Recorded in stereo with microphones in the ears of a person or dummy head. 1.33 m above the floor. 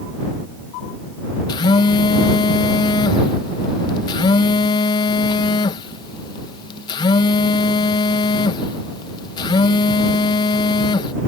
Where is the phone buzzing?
25° left (ahead or behind).